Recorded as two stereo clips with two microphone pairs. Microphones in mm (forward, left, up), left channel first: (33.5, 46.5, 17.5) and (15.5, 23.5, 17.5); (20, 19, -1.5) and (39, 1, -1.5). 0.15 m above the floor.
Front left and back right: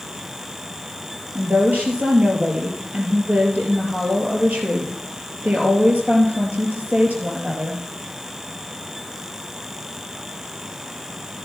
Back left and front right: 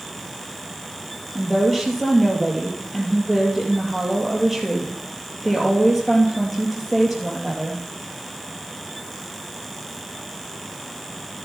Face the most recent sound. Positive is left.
turn(degrees=-140)